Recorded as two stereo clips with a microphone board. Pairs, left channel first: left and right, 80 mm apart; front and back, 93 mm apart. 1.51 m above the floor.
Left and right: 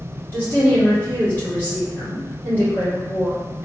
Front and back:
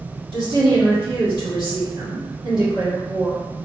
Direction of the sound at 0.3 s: 155° left.